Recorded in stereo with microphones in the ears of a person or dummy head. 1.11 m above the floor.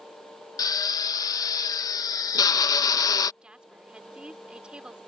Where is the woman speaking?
5° right (ahead or behind).